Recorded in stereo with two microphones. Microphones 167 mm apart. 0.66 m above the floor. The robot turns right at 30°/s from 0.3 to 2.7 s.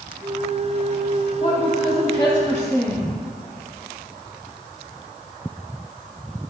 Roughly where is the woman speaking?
Behind left.